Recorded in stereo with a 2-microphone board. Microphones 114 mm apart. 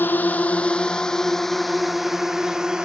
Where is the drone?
15° left (ahead or behind); by 2.8 s 5° right (ahead or behind).